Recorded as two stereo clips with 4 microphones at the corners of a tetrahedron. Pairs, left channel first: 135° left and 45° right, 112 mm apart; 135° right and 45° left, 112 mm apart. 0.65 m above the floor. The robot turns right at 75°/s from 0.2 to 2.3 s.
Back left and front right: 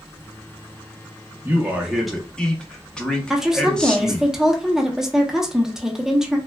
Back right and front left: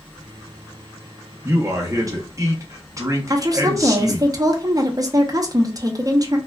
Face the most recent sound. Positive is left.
turn(degrees=35)